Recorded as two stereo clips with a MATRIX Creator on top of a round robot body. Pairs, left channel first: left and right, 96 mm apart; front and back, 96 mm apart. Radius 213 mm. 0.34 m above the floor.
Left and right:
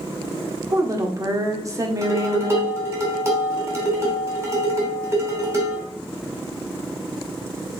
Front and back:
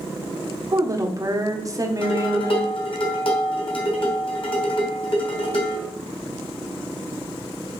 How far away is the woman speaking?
About 1.7 m.